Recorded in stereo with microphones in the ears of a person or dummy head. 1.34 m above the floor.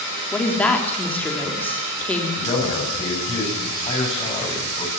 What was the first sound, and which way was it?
A woman speaking, 10° left (ahead or behind).